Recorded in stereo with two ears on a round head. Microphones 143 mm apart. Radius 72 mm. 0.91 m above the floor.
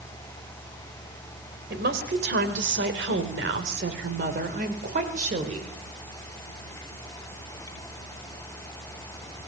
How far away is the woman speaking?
About 4 m.